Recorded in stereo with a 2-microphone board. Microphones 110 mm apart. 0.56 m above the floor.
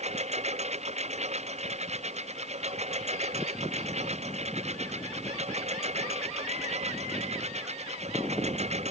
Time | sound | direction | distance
0.0 | a lawn mower | 85° right | ?